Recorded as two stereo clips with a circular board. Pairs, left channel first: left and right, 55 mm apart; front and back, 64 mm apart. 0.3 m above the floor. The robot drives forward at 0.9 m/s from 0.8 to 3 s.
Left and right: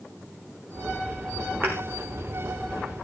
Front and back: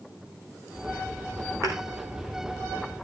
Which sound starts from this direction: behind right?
A thud, at 1.6 s.